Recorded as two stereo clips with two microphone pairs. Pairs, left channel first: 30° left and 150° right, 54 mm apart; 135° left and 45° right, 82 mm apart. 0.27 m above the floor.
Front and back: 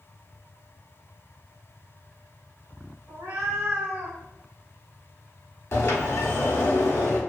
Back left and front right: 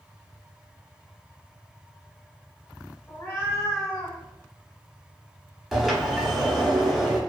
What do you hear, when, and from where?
3.1 s a cat meowing: 165° right, 1.1 m; by 4.2 s 140° left, 1.0 m
5.7 s a sliding door: 45° left, 0.8 m